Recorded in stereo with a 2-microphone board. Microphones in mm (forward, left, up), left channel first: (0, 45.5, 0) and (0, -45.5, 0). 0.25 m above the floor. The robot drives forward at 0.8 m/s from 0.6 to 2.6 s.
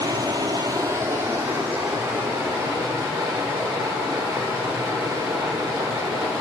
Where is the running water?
45° right (ahead or behind), 0.7 m; by 6.4 s 15° right (ahead or behind), 2 m.